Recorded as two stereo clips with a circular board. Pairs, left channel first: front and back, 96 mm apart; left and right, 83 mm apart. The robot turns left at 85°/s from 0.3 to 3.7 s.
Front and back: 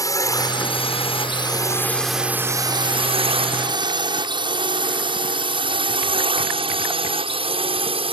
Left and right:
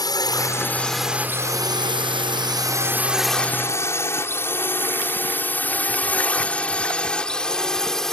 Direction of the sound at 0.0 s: 55° left.